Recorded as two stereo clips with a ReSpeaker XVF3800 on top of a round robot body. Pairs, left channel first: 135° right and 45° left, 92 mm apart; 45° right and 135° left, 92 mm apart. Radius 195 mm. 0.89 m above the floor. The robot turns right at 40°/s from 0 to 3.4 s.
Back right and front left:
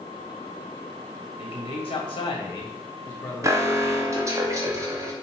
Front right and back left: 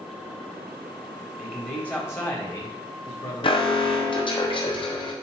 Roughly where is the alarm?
Ahead.